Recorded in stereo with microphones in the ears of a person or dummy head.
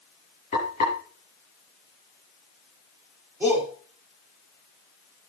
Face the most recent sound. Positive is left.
turn(degrees=-10)  # may be behind; listen again after turning